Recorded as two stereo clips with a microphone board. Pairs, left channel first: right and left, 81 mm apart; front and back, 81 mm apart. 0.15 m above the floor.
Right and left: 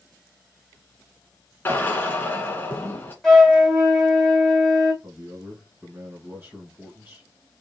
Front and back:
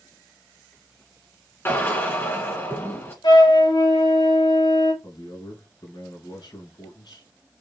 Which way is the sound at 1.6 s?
45° right.